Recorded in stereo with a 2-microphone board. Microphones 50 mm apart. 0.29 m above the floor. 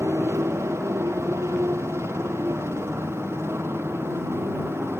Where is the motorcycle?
60° right (ahead or behind); by 5.0 s 50° right (ahead or behind).